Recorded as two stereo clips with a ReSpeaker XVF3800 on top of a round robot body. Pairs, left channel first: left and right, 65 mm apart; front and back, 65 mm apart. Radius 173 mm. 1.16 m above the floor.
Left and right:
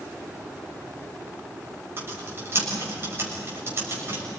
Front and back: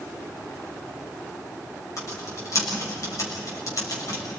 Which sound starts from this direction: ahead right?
Typing on a keyboard, at 2.0 s.